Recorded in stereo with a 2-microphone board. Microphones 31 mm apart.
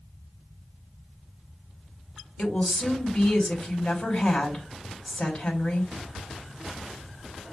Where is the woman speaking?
45° left (ahead or behind), 2.5 m.